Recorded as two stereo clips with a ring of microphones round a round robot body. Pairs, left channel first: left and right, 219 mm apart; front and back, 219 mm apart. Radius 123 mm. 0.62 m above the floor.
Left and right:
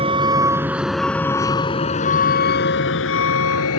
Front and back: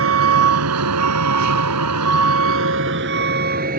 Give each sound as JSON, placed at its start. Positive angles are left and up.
{"t": 0.0, "sound": "a vehicle", "azimuth_deg": -160}